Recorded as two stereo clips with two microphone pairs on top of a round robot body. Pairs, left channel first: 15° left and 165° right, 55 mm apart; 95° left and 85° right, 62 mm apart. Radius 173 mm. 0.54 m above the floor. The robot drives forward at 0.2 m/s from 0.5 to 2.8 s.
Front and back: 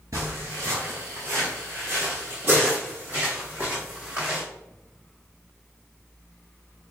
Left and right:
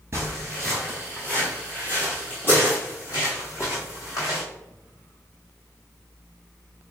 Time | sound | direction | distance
0.1 | footsteps | 140° right | 0.6 m